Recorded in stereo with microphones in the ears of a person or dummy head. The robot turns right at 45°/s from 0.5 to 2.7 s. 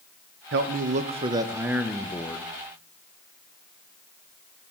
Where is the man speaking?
65° right, 0.6 m; by 2.5 s 25° left, 0.6 m.